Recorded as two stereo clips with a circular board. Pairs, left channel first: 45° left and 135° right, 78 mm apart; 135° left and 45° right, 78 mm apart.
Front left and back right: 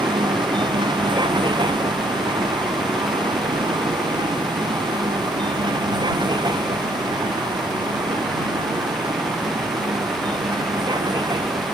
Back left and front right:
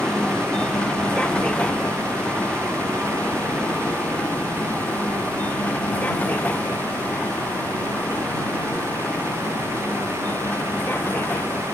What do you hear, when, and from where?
0.0 s a vehicle: 145° right; by 11.8 s 160° right